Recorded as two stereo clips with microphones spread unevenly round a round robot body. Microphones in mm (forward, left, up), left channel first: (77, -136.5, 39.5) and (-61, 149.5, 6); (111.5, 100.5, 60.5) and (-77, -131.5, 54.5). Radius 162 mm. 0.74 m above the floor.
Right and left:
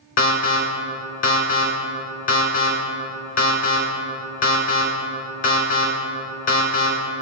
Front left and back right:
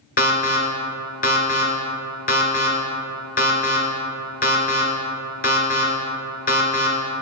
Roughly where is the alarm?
Ahead.